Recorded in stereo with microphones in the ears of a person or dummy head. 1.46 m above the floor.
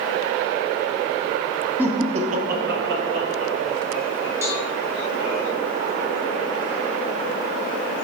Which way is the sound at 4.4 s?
15° right (ahead or behind).